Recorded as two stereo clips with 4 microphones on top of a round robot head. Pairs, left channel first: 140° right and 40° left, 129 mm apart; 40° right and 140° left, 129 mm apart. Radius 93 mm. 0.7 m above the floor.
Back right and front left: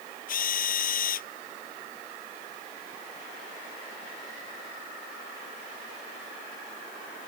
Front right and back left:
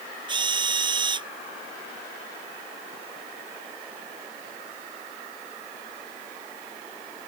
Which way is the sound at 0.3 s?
160° right.